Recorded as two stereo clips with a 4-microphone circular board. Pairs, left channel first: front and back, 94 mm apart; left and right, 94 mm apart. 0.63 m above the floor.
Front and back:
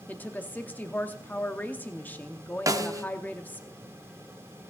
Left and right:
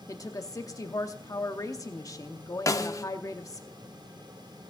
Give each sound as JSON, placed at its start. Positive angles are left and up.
{"t": 0.1, "sound": "a woman speaking", "azimuth_deg": 60, "distance_m": 0.8}
{"t": 2.7, "sound": "a snare drum", "azimuth_deg": 135, "distance_m": 0.8}